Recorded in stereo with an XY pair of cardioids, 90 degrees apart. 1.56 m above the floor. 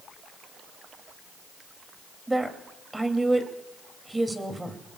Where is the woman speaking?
15° right, 3 m.